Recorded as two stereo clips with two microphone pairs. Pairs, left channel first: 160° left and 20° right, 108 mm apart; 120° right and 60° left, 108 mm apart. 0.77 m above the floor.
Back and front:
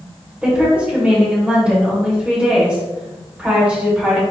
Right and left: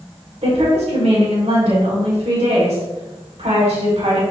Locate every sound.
0.4 s a woman speaking: 60° left, 3 m